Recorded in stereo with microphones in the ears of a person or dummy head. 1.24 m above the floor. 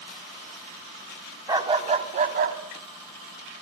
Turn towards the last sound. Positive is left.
turn(degrees=-70)  # may be behind; listen again after turning